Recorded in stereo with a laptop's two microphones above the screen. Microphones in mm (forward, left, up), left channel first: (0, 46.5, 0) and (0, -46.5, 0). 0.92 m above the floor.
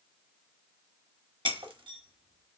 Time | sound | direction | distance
1.4 | breaking glass | 70° right (ahead or behind) | 0.9 m